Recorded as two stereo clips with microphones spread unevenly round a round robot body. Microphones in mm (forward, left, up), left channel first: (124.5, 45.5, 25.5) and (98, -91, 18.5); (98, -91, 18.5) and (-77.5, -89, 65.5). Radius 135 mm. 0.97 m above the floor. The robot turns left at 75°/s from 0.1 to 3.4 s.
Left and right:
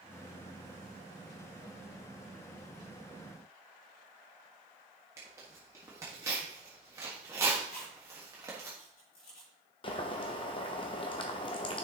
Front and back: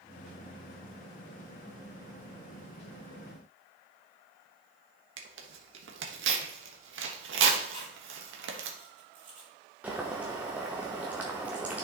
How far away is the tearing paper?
About 1.3 m.